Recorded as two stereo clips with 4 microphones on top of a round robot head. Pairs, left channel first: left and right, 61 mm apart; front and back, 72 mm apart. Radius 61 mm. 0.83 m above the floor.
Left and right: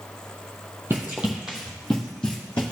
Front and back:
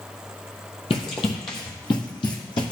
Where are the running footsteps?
20° right, 1.3 m; by 2.7 s 15° left, 2.0 m.